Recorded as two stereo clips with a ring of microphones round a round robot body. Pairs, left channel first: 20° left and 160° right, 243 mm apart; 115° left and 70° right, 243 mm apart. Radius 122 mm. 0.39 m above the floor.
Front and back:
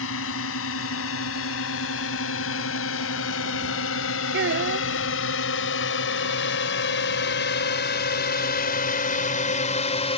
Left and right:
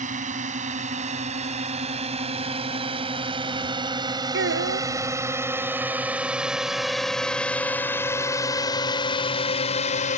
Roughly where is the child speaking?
Right.